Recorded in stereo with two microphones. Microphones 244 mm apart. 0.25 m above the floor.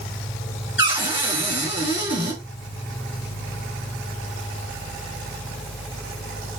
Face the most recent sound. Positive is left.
turn(degrees=50)  # may be behind; listen again after turning